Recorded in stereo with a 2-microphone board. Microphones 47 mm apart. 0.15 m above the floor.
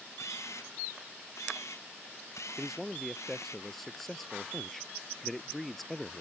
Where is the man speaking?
5° left (ahead or behind).